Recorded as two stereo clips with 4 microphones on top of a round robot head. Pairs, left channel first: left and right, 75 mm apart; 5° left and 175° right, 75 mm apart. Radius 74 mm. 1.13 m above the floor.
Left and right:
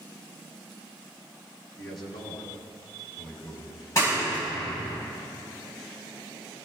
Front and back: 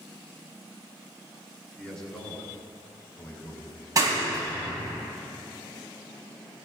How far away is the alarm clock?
No alarm clock in this recording.